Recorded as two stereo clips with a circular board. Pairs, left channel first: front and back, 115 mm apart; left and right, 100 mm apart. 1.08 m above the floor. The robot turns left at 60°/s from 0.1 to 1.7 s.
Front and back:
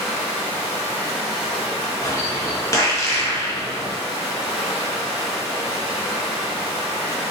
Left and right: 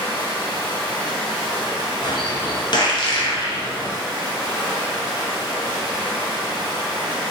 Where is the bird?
60° left, 0.5 m.